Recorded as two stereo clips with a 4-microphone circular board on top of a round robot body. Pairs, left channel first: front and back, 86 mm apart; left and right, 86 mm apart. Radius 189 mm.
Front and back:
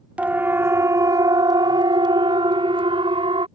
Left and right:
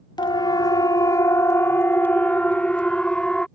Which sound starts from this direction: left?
A siren, at 0.2 s.